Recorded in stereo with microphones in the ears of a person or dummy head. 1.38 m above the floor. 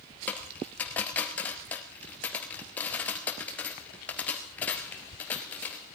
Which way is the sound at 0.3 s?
10° left (ahead or behind).